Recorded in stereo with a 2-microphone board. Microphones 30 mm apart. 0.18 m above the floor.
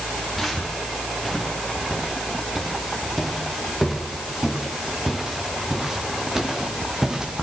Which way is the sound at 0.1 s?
5° right (ahead or behind).